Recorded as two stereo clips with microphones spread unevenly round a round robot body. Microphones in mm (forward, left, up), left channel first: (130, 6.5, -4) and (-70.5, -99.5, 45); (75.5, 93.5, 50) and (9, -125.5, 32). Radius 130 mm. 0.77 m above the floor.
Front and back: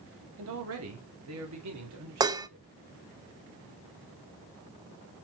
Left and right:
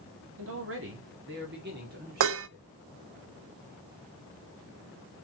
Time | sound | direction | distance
0.4 | a man speaking | 125° right | 1.8 m
2.2 | dishes clattering | 75° right | 0.6 m